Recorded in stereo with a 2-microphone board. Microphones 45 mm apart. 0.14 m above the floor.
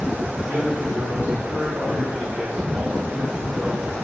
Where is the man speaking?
40° right (ahead or behind), 2.5 m; by 4.0 s 25° right (ahead or behind), 5 m.